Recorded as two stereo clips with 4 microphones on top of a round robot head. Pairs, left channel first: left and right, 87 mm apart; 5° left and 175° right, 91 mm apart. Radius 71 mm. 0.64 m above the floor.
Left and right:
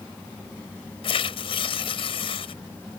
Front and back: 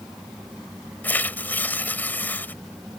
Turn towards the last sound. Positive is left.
turn(degrees=75)